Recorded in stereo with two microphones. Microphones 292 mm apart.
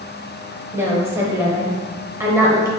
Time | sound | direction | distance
0.7 | a woman speaking | 10° right (ahead or behind) | 0.9 m